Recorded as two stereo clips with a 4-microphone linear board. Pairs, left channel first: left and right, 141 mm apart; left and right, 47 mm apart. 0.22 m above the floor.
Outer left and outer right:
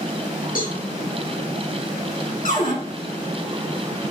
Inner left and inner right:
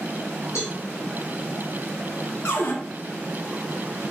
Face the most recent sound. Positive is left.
turn(degrees=60)  # may be behind; listen again after turning